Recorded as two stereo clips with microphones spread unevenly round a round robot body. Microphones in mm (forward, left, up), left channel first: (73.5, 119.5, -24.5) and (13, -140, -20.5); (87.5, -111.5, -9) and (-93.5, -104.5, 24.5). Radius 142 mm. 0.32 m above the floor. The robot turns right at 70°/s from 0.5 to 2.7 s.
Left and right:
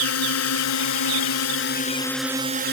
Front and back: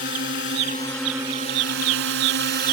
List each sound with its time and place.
0.0 s a drone: 50° left; by 2.7 s 160° right